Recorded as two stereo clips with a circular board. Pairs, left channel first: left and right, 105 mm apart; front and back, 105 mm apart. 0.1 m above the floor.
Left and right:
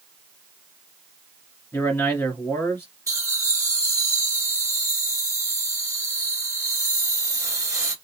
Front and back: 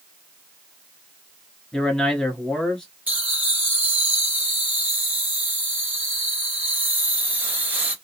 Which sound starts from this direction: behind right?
Laughter, at 3.1 s.